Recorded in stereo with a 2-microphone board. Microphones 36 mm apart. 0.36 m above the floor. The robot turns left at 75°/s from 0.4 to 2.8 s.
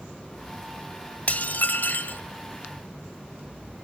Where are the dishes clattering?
130° left, 1.1 m; by 2.2 s 60° left, 1.1 m.